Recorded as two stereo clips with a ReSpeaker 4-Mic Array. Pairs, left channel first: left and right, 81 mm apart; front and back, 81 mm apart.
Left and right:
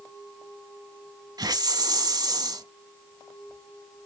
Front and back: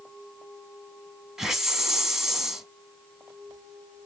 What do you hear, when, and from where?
1.4 s a hiss: 95° right, 0.8 m